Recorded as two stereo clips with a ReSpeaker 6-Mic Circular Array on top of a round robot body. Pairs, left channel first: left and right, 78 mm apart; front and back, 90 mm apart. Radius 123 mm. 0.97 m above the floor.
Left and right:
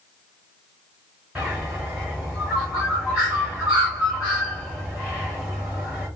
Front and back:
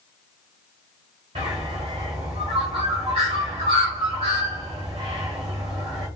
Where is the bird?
170° right, 0.8 m.